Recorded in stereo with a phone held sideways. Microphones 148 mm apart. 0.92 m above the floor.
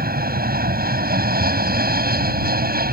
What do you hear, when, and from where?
0.0 s an aircraft: 80° right